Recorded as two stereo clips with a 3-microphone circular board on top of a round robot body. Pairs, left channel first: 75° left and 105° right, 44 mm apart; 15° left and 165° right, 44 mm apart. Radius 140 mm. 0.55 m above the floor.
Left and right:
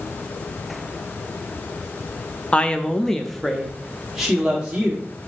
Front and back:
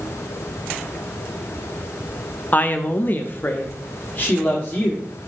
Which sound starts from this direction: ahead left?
A woman speaking, at 2.5 s.